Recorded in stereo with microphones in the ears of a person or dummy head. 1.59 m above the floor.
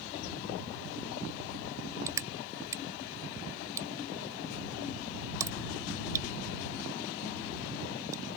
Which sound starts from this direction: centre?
Crushing, at 2.1 s.